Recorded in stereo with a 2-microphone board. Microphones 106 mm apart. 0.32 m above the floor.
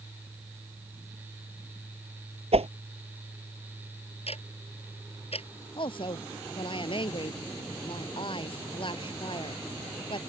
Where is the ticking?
70° left (ahead or behind).